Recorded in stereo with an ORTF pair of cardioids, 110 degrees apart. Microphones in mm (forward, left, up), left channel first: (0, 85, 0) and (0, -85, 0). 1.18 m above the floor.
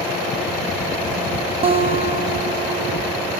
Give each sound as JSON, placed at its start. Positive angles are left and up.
{"t": 1.6, "sound": "a guitar", "azimuth_deg": -35, "distance_m": 0.8}